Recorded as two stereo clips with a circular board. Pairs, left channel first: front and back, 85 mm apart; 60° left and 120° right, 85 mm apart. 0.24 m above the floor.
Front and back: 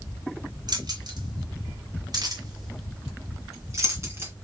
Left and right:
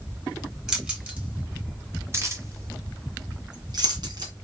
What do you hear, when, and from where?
0.7 s keys jangling: 160° left, 1.9 m; by 4.3 s 125° right, 2 m